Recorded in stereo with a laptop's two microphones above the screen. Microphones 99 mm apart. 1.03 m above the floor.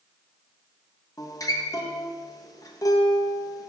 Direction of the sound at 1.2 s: 35° left (ahead or behind).